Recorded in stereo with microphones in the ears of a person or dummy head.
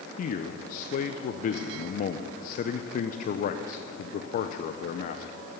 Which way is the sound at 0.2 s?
50° left (ahead or behind).